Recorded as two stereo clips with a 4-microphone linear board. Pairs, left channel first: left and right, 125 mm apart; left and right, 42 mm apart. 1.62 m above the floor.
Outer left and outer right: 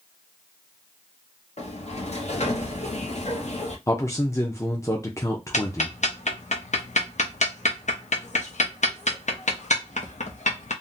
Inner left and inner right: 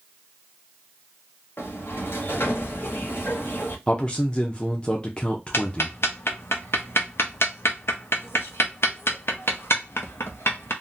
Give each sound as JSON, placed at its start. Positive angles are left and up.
{"t": 1.6, "sound": "a sliding door", "side_deg": 65, "distance_m": 0.8}
{"t": 3.9, "sound": "a man speaking", "side_deg": 25, "distance_m": 0.6}
{"t": 5.5, "sound": "ticking", "side_deg": 75, "distance_m": 0.6}